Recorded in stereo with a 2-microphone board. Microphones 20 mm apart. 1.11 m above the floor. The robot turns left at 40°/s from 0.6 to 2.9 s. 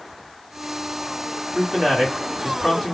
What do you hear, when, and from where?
1.6 s a man speaking: straight behind, 1.5 m; by 3.0 s 130° left, 1.5 m